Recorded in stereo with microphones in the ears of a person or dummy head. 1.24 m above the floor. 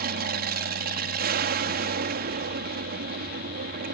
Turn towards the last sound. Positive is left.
turn(degrees=-45)  # may be behind; listen again after turning